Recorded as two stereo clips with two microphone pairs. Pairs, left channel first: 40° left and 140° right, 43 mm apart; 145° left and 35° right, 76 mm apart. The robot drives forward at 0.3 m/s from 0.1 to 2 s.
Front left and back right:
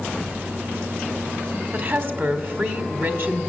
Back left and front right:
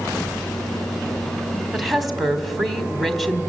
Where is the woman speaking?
125° right, 1.5 m.